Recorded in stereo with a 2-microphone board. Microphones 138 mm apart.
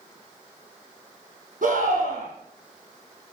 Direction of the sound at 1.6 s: 70° right (ahead or behind).